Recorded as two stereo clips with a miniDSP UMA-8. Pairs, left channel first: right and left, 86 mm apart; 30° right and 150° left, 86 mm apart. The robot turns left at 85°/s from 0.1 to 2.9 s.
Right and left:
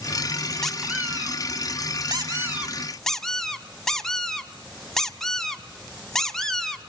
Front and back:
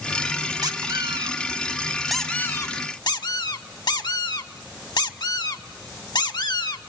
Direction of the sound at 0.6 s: 175° right.